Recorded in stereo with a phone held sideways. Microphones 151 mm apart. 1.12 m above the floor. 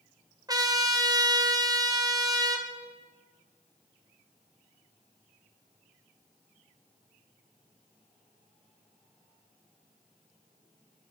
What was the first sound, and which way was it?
A trumpet, 25° right (ahead or behind).